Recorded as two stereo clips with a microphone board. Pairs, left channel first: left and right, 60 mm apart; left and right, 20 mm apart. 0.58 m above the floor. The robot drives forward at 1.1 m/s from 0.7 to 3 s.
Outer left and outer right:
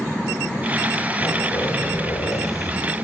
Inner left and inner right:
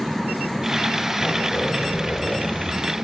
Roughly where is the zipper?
Left.